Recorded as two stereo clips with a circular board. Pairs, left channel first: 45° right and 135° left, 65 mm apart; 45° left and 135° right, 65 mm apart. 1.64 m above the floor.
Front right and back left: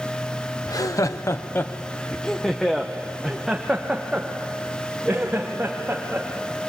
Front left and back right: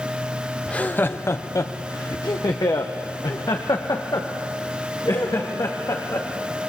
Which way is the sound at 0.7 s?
25° right.